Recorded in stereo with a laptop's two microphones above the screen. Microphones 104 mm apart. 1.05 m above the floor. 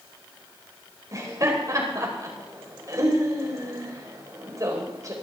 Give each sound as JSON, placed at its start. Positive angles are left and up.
{"t": 1.1, "sound": "laughter", "side_deg": -35, "distance_m": 4.5}